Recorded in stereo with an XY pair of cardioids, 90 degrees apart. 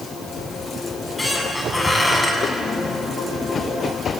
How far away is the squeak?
About 7 m.